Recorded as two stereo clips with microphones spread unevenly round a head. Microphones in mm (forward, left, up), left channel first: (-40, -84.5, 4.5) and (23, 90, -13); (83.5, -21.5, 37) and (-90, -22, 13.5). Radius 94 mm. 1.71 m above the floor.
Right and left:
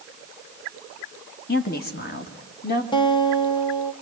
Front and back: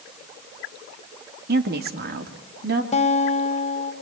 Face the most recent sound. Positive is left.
turn(degrees=-45)